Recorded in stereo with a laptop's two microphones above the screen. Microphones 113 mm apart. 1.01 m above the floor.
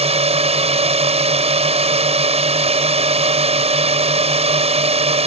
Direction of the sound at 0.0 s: 75° right (ahead or behind).